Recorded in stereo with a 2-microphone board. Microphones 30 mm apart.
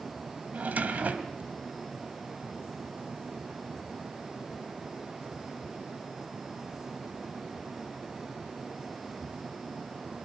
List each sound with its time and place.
0.5 s a drawer: 55° right (ahead or behind), 1.9 m